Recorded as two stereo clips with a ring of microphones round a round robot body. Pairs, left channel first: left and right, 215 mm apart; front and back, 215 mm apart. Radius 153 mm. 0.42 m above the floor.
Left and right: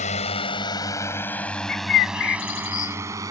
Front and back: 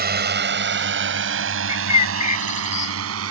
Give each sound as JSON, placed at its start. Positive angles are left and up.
{"t": 0.0, "sound": "a drone", "azimuth_deg": 150}
{"t": 1.7, "sound": "a bird", "azimuth_deg": 60}